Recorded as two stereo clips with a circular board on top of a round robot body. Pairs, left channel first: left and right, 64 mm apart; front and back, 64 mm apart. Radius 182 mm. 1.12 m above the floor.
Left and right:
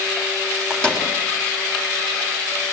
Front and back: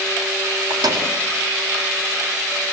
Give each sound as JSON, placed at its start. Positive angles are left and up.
{"t": 0.7, "sound": "a microwave", "azimuth_deg": 170, "distance_m": 3.5}